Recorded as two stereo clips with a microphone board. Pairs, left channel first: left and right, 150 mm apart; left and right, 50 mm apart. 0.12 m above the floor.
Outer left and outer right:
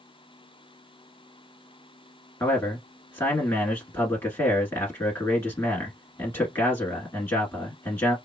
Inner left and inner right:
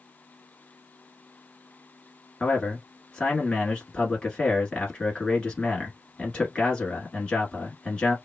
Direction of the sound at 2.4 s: 15° left (ahead or behind).